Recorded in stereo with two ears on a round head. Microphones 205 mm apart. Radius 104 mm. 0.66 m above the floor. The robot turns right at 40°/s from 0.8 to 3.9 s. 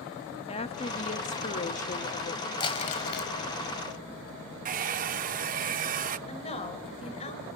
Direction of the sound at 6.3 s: 30° left (ahead or behind).